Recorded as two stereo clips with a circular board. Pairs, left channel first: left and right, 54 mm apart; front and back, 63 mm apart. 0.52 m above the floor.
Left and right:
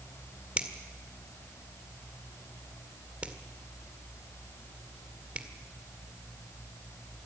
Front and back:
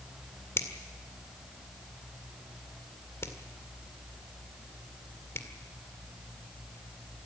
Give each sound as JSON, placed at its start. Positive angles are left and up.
{"t": 0.6, "sound": "a finger snap", "azimuth_deg": -30, "distance_m": 1.8}